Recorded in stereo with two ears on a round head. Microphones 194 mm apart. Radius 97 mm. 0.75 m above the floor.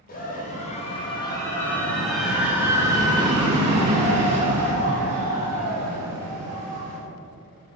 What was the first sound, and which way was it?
A scream, 40° left (ahead or behind).